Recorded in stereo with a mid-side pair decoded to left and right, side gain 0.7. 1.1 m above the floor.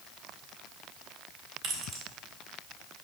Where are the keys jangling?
60° right, 2.5 m.